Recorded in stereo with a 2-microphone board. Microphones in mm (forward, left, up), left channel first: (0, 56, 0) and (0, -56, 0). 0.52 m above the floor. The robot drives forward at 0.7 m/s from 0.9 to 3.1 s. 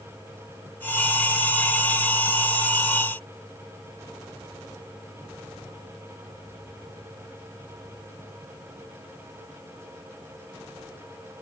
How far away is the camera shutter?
I don't hear a camera shutter.